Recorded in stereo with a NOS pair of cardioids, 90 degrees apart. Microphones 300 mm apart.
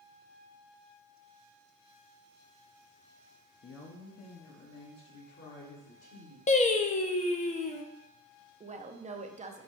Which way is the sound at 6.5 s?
25° left.